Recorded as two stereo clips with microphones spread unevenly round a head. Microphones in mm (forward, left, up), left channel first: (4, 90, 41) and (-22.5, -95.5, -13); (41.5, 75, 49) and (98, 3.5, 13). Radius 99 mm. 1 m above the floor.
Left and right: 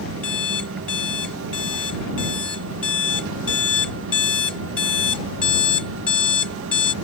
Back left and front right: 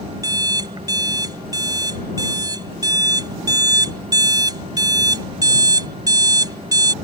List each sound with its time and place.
0.2 s an alarm clock: straight ahead